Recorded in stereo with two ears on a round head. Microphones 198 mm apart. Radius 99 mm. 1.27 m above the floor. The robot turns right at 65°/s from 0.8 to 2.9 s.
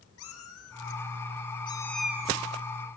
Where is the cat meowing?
70° left (ahead or behind), 4 m; by 3.0 s 55° right (ahead or behind), 4 m.